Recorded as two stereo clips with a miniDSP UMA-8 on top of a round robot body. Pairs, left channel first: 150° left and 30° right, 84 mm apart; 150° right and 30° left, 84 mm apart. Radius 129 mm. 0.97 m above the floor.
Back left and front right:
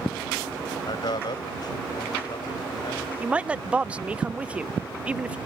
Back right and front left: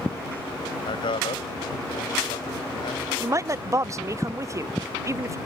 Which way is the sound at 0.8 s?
175° right.